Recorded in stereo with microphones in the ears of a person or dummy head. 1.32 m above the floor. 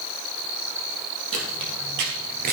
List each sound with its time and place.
1.3 s footsteps: 65° right (ahead or behind), 3 m; by 2.5 s 35° right (ahead or behind), 1.5 m